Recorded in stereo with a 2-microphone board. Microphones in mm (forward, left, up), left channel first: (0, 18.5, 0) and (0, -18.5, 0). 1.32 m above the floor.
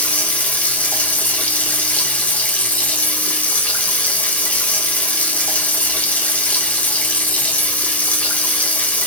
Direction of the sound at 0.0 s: 40° left (ahead or behind).